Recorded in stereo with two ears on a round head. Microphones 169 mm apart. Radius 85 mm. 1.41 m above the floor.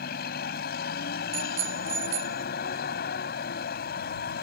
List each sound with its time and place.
0.0 s a vehicle: 55° left (ahead or behind)
1.3 s a bicycle bell: 70° right (ahead or behind)